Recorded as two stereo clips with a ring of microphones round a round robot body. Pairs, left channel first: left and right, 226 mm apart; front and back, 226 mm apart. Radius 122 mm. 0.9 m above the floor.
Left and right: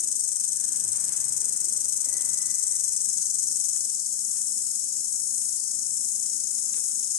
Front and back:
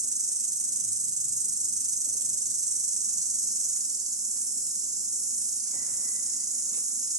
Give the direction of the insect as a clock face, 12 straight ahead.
8 o'clock.